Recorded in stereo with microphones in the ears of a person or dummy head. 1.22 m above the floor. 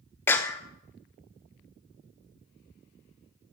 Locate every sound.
0.3 s a clap: 15° left (ahead or behind), 0.6 m